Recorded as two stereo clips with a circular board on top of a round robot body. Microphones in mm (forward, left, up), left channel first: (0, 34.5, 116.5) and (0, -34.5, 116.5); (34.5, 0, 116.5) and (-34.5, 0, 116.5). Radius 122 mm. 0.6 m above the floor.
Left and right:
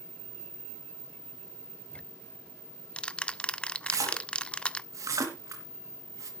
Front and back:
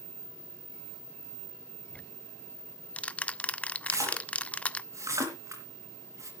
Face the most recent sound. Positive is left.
turn(degrees=-135)